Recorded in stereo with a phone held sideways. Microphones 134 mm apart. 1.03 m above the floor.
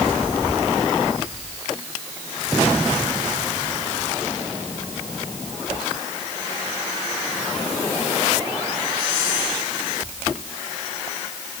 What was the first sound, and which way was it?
Only background noise.